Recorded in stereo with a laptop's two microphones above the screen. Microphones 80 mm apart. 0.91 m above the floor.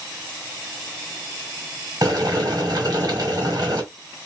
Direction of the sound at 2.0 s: 50° right (ahead or behind).